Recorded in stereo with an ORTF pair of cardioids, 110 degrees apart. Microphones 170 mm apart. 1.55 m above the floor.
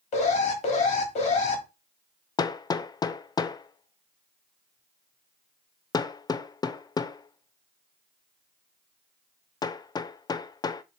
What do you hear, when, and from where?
0.1 s an alarm: 45° left, 2.5 m
2.4 s hammering: 25° left, 0.5 m